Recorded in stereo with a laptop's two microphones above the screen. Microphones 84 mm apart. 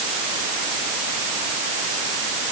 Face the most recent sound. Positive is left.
No sound to turn to.